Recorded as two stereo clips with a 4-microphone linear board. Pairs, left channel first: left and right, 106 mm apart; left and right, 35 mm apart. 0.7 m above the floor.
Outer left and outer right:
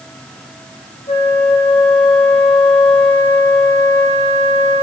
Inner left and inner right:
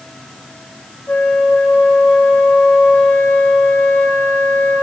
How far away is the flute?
About 6 m.